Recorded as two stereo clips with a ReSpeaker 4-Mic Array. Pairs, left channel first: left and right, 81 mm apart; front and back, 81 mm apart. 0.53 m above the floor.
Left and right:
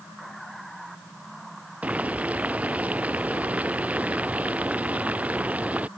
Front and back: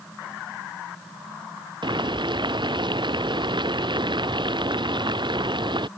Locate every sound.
1.8 s boiling: 165° right